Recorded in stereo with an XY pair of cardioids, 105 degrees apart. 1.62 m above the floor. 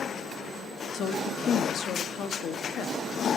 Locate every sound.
0.9 s a woman speaking: 60° left, 1.2 m